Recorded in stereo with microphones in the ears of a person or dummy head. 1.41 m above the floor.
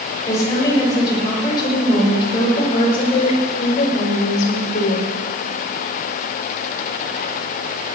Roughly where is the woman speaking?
Centre.